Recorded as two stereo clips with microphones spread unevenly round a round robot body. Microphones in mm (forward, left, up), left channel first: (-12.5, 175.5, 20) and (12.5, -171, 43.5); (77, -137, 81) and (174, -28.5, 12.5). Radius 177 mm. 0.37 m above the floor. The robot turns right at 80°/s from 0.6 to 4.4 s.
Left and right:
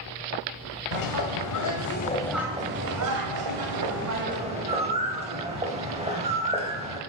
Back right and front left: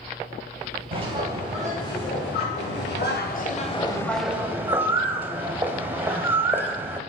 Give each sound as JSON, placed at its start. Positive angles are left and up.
{"t": 0.9, "sound": "a bird", "azimuth_deg": 70, "distance_m": 2.0}